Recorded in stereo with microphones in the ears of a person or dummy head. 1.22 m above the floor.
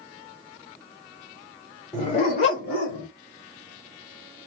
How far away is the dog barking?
About 1.3 m.